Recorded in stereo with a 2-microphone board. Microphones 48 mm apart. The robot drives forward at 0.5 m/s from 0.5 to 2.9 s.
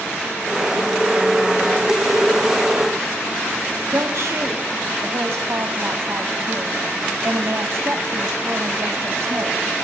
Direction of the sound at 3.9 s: 70° right (ahead or behind).